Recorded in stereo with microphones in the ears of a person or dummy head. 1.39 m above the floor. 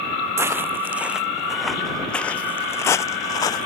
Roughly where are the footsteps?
Centre.